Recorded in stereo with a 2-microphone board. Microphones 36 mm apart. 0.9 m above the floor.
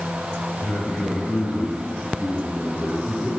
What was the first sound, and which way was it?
A man speaking, 40° left (ahead or behind).